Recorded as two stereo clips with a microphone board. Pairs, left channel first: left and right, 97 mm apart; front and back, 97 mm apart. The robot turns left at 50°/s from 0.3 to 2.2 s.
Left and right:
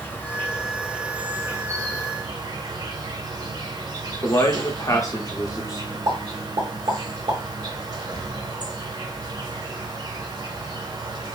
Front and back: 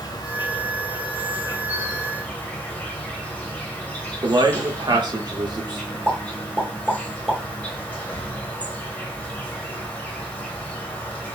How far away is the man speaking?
About 0.6 m.